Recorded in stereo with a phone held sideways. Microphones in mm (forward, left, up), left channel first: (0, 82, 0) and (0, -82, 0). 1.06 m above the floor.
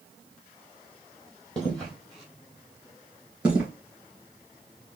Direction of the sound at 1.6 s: 5° left (ahead or behind).